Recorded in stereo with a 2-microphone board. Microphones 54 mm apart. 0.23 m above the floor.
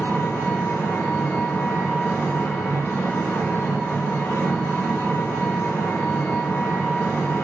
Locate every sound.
0.0 s an engine running: 50° left (ahead or behind), 0.9 m